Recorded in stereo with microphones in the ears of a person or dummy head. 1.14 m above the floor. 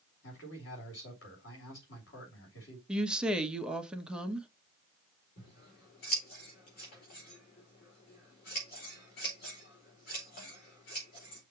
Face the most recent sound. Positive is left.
turn(degrees=60)  # may be behind; listen again after turning